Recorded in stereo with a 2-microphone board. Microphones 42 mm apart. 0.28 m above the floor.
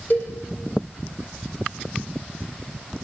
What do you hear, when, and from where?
0.1 s a cowbell: 40° left (ahead or behind), 6.5 m